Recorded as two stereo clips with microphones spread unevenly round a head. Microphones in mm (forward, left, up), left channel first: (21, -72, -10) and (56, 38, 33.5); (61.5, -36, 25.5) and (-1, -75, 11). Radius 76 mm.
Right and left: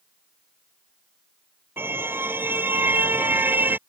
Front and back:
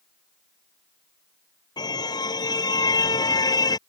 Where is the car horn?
Straight ahead.